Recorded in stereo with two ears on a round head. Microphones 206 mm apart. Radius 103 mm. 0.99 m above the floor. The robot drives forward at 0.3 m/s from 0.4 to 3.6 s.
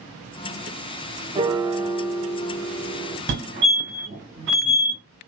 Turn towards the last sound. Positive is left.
turn(degrees=-50)  # may be behind; listen again after turning